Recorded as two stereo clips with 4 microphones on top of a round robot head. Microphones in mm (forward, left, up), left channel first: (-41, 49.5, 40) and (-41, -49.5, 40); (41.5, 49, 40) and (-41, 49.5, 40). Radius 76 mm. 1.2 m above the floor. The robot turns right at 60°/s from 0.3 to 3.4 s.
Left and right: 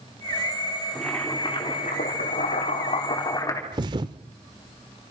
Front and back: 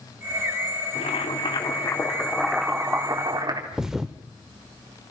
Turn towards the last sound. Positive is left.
turn(degrees=-95)